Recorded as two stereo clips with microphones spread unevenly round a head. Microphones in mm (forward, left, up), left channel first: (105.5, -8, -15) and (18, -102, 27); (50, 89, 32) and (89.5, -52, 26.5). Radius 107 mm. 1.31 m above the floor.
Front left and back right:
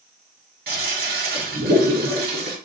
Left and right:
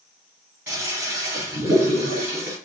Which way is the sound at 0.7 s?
155° right.